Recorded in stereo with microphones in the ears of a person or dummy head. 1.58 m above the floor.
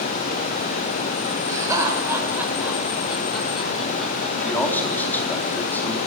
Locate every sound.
1.5 s laughter: 20° right (ahead or behind), 6.5 m; by 5.3 s 5° left (ahead or behind), 7.5 m
4.4 s a man speaking: 15° left (ahead or behind), 4 m